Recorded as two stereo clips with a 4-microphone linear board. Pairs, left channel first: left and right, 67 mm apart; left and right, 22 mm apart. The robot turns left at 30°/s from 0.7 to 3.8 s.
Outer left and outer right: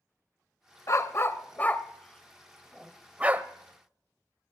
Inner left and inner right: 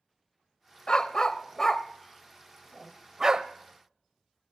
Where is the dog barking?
45° left (ahead or behind), 0.7 m; by 3.5 s 30° right (ahead or behind), 0.7 m.